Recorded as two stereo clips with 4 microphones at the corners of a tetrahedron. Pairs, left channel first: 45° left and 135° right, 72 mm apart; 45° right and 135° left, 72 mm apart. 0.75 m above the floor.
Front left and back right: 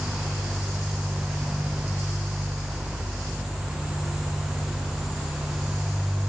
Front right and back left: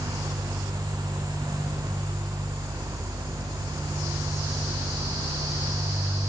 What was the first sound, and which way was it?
Only background noise.